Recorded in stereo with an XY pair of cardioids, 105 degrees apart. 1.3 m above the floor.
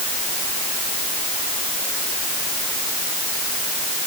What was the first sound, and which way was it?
Only background noise.